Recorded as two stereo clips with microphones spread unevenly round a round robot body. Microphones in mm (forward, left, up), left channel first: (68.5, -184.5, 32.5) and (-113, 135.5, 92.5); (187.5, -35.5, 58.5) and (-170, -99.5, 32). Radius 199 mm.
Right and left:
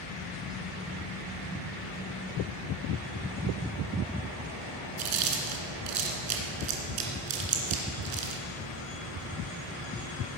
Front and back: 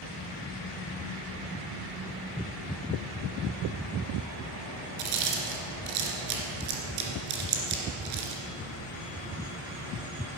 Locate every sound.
5.0 s chewing: 155° left, 2.5 m